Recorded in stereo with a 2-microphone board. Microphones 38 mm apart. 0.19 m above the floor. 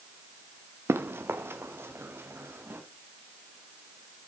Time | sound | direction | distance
0.9 | running footsteps | 80° right | 1.3 m